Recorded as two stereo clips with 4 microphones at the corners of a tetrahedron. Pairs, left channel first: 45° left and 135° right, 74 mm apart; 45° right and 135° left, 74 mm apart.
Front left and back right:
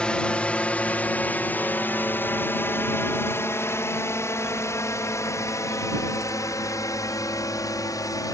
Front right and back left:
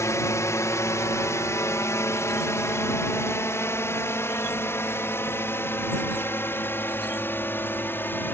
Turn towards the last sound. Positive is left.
turn(degrees=15)